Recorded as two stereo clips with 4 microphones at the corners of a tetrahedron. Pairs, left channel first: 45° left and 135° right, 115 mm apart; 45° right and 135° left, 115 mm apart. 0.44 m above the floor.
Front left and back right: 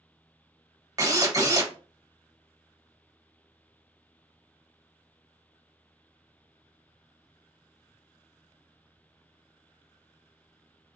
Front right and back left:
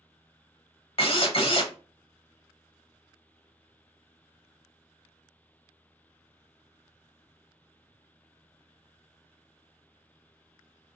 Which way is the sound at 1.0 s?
75° right.